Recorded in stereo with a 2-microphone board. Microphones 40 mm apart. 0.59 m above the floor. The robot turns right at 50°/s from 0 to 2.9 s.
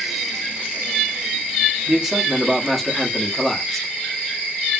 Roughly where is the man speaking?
Centre.